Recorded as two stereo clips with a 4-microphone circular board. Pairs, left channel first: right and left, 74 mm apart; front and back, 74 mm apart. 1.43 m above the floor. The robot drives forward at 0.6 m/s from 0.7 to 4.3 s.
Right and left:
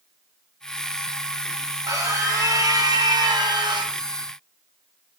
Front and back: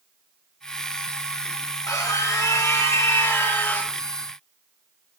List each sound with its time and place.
1.9 s a scream: 45° left, 2.5 m; by 4.0 s 70° left, 2.0 m